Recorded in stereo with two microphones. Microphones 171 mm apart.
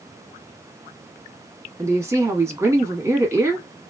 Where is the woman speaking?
15° right (ahead or behind), 1.1 m.